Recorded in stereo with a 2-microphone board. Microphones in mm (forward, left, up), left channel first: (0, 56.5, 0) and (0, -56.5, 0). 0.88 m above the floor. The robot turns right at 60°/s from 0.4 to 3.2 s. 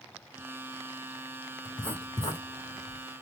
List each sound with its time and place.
1.6 s writing: centre (ahead or behind), 1.3 m; by 3.0 s 80° left, 1.3 m